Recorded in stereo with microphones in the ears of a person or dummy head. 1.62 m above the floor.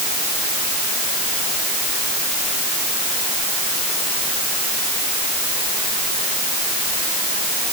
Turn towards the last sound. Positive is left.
No sound to turn to.